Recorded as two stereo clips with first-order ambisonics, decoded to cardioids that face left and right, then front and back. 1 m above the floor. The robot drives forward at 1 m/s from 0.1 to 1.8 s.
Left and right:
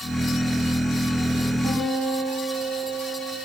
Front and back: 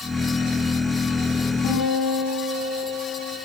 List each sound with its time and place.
1.6 s a guitar: 15° right, 6 m